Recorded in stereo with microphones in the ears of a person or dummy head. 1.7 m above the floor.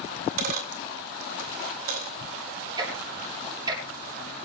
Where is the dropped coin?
55° right (ahead or behind), 2 m.